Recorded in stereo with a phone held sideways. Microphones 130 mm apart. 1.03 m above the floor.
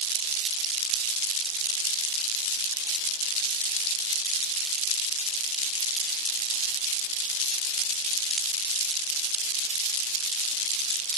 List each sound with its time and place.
Only background noise.